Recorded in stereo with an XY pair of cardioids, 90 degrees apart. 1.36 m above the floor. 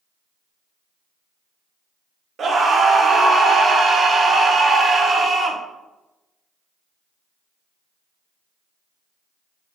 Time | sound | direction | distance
2.4 | a scream | 55° right | 0.6 m